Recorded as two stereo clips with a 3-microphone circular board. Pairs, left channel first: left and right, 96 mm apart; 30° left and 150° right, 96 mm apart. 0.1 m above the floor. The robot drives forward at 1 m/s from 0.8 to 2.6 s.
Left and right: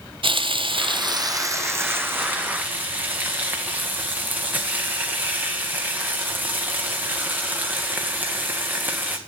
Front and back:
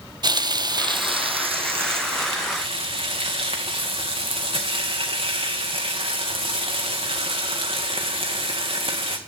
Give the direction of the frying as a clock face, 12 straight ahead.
4 o'clock.